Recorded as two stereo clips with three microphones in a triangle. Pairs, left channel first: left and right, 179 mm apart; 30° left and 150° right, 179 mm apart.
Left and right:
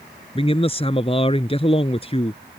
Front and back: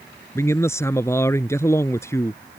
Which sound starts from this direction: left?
A man speaking, at 0.3 s.